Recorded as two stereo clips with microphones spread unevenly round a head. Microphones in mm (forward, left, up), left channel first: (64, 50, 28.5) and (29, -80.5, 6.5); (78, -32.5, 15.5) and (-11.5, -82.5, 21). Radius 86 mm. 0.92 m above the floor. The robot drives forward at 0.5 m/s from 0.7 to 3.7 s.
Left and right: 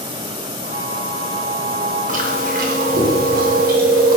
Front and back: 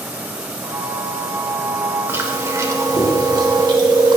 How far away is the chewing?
About 2.0 m.